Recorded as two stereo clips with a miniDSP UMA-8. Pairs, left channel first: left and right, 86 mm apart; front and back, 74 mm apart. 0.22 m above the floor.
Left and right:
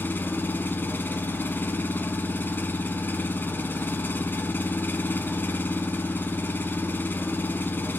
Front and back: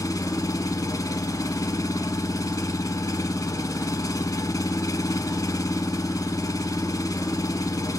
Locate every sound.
0.0 s an engine running: 30° left, 0.7 m